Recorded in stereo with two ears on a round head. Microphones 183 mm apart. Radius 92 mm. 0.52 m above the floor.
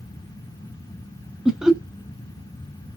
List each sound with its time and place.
1.4 s laughter: 5° right (ahead or behind), 0.7 m